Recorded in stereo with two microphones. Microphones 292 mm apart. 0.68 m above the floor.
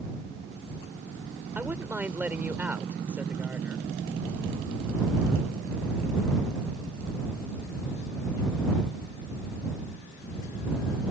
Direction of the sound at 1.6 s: 5° right (ahead or behind).